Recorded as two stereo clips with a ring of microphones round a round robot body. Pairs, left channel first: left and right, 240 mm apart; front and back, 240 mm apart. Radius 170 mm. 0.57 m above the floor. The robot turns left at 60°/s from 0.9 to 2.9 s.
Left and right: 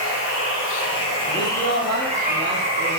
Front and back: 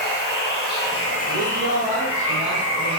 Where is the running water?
50° left, 1.0 m; by 3.0 s 70° right, 1.0 m.